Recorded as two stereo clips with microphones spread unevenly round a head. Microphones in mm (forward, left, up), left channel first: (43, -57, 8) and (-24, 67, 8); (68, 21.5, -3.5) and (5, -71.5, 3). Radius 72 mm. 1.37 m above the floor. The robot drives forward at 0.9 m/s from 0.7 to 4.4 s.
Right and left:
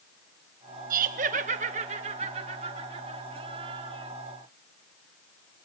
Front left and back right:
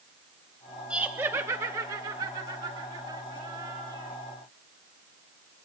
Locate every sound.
0.9 s laughter: 155° left, 1.0 m; by 4.1 s 175° left, 4 m